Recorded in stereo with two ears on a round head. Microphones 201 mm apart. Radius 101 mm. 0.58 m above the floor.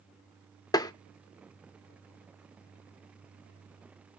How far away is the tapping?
About 0.5 m.